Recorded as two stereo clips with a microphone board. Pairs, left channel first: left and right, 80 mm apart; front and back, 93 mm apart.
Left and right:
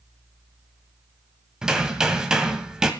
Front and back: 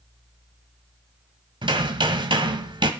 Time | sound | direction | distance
1.6 | hammering | 170° right | 1.5 m